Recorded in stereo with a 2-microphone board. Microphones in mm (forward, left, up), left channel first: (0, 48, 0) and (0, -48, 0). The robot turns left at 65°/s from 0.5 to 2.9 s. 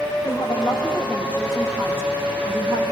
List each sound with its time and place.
0.2 s a woman speaking: 70° left, 9 m; by 2.9 s 85° right, 9 m